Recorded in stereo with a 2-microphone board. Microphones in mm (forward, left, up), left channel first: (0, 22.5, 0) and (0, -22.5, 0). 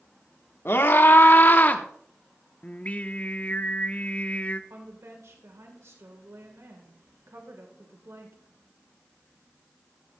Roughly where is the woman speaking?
Right.